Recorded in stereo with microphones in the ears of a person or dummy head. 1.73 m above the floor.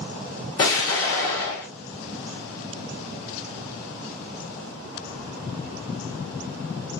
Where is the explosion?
20° left (ahead or behind), 0.7 m.